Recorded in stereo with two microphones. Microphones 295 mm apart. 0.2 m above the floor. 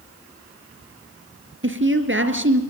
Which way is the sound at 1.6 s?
45° right (ahead or behind).